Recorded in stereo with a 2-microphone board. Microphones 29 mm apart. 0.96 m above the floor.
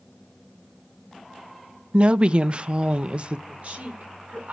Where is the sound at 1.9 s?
40° right (ahead or behind), 0.5 m.